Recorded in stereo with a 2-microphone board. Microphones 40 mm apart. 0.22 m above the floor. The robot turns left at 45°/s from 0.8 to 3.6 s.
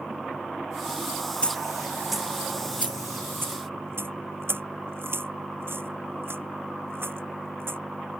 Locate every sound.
1.4 s a dropped coin: 30° left (ahead or behind); by 7.8 s 70° right (ahead or behind)